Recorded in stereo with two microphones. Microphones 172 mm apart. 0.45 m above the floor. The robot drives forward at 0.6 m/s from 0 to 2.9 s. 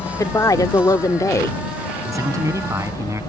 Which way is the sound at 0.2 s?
20° left (ahead or behind).